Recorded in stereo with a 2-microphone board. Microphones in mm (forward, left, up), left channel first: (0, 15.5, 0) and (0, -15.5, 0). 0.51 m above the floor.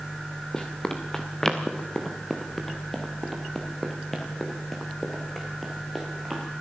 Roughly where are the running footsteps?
Left.